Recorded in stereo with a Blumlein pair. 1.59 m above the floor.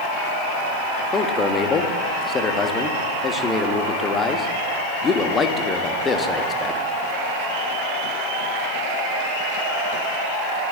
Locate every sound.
1.1 s a man speaking: 20° left, 1.2 m